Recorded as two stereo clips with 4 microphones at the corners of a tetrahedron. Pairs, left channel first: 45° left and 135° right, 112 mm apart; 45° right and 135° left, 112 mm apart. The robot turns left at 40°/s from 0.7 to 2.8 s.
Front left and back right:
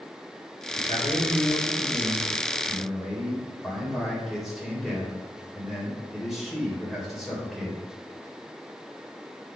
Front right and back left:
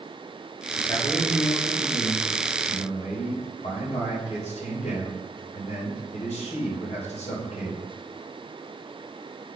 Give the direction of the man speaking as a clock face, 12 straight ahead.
11 o'clock.